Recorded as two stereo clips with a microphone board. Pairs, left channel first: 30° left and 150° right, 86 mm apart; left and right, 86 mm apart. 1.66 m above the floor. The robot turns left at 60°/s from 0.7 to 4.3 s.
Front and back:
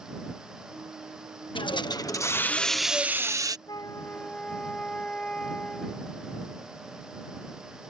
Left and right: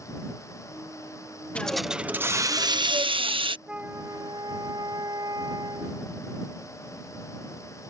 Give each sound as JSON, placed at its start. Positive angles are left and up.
{"t": 1.6, "sound": "a hiss", "azimuth_deg": 15}
{"t": 3.7, "sound": "a flute", "azimuth_deg": -10}